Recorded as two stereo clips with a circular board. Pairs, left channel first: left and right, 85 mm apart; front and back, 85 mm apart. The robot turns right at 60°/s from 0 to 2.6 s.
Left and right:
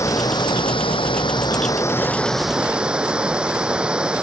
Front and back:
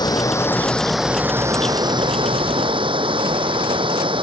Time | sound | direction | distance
0.0 | running water | 35° left | ?